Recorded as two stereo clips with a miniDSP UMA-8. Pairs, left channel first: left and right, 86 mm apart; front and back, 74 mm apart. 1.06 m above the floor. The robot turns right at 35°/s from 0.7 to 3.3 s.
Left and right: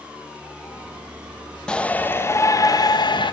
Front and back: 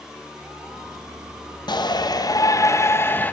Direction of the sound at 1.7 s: 10° left.